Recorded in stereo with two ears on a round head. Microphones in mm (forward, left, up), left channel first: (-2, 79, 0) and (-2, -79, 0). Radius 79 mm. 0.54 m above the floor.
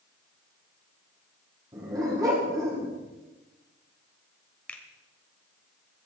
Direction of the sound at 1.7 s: 20° right (ahead or behind).